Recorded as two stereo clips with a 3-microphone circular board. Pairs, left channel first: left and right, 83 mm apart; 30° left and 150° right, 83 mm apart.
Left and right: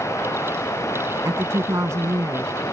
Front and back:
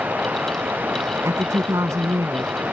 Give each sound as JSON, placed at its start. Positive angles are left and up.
{"t": 0.0, "sound": "running water", "azimuth_deg": 140}
{"t": 1.2, "sound": "a woman speaking", "azimuth_deg": -120}